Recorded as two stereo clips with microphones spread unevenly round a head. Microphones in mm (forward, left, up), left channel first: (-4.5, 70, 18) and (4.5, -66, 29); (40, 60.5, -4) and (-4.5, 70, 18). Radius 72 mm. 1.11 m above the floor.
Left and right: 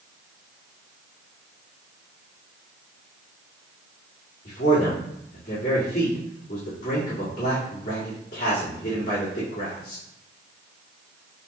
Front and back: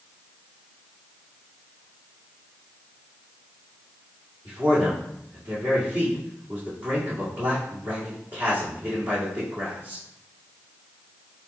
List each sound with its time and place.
4.5 s a man speaking: 130° left, 2.0 m